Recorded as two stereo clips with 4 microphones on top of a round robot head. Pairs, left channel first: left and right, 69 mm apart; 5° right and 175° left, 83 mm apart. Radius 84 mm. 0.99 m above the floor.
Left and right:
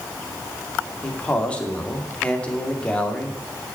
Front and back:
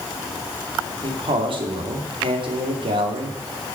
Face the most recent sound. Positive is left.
turn(degrees=165)